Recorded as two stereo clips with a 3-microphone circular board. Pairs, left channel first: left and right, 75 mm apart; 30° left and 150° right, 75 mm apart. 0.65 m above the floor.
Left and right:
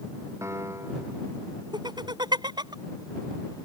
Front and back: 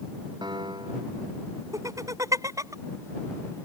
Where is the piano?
140° right.